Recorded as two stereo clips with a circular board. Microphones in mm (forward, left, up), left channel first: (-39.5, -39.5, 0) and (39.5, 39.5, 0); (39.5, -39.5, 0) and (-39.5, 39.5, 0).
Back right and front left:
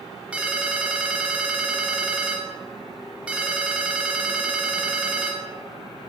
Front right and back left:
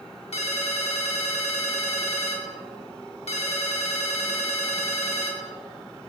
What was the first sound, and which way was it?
A ringtone, 30° right.